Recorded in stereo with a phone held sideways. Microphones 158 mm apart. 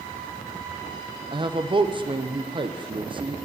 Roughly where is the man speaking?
Right.